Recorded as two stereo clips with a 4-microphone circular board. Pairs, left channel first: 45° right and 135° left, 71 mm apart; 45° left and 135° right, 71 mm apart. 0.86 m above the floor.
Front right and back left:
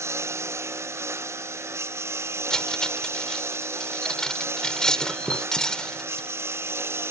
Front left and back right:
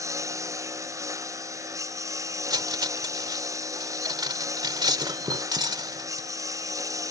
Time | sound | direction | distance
0.0 | a lawn mower | 175° right | ?
2.5 | cutlery clinking | 125° right | ?